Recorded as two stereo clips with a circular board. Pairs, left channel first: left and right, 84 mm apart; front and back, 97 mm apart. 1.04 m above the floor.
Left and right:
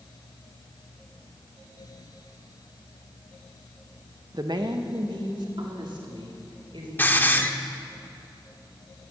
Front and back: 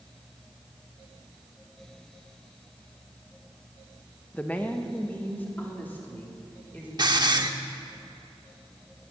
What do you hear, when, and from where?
4.3 s a woman speaking: 70° right, 0.9 m
7.0 s a hiss: 150° left, 0.9 m